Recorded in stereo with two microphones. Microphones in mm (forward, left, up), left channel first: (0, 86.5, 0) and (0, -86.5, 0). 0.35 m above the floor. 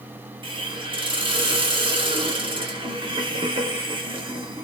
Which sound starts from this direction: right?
A hiss, at 0.4 s.